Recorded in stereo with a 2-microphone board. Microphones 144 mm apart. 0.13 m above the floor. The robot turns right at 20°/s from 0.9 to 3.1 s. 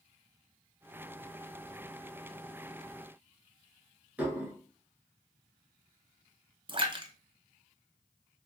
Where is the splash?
35° right (ahead or behind), 0.5 m.